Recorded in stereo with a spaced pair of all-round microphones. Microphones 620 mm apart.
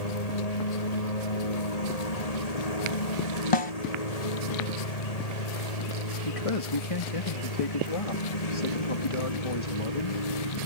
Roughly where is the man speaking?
Left.